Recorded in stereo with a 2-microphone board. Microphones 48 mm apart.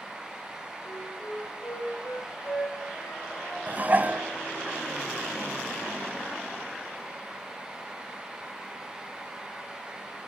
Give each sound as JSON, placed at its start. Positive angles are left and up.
{"t": 0.8, "sound": "a flute", "side_deg": 60, "distance_m": 7.5}
{"t": 3.7, "sound": "dishes clattering", "side_deg": -35, "distance_m": 1.4}